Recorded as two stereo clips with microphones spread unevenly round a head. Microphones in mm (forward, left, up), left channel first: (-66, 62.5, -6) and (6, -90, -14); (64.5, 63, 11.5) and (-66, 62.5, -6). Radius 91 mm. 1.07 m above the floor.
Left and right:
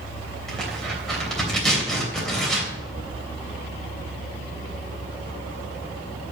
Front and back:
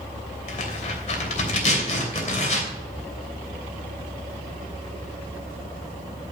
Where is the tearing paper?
30° left, 3 m.